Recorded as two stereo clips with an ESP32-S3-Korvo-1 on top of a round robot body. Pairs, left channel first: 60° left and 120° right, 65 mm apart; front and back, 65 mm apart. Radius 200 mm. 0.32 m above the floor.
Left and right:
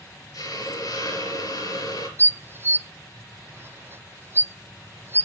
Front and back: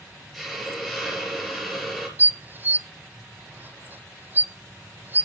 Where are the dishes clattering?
140° right, 0.7 m.